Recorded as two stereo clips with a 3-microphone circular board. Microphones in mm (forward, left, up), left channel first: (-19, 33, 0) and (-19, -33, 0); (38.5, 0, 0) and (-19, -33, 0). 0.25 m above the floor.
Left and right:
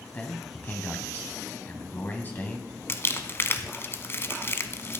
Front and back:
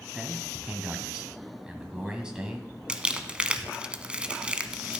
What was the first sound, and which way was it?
A man speaking, 135° left.